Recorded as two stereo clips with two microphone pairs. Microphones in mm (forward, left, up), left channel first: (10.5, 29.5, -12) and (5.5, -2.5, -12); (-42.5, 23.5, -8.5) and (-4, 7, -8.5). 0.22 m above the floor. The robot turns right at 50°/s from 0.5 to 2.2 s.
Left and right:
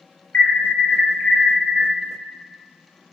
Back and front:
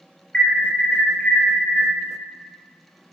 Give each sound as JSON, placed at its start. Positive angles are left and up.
{"t": 0.3, "sound": "an alarm", "azimuth_deg": 95, "distance_m": 5.0}